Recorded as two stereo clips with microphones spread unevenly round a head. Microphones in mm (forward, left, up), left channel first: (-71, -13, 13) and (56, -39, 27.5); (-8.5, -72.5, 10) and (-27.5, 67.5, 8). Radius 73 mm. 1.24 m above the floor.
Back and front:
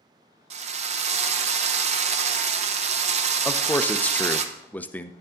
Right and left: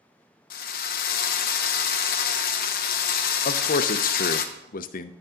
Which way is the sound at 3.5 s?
115° right.